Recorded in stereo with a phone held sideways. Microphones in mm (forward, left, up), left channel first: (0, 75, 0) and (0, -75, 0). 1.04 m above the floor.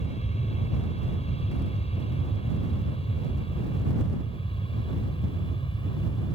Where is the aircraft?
45° left (ahead or behind); by 6.4 s 35° left (ahead or behind).